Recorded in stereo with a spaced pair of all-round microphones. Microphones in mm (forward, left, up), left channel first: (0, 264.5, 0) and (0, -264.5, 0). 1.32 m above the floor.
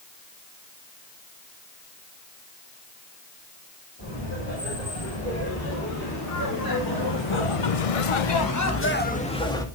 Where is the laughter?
25° left (ahead or behind), 5.5 m; by 9.7 s 5° left (ahead or behind), 2.5 m.